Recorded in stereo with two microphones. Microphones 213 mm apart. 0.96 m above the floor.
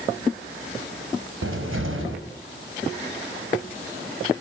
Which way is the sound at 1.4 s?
85° right.